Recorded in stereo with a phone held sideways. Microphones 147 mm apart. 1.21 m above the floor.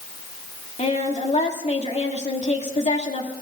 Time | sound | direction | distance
0.8 | a woman speaking | 50° left (ahead or behind) | 2.5 m